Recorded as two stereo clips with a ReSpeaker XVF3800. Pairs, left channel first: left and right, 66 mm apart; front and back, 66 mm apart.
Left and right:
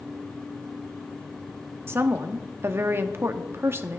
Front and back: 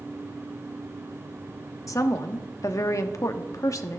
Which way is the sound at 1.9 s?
35° right.